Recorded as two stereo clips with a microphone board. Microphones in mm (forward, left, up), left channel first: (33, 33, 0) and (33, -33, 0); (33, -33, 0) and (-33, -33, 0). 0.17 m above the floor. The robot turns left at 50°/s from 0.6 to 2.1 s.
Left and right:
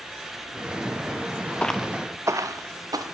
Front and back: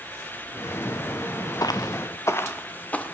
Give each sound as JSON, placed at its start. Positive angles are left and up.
{"t": 1.6, "sound": "footsteps", "azimuth_deg": 20, "distance_m": 0.9}